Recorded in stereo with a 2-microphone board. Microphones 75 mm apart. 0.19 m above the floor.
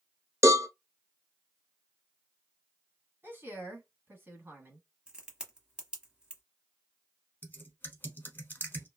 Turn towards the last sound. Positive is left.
turn(degrees=30)  # may be behind; listen again after turning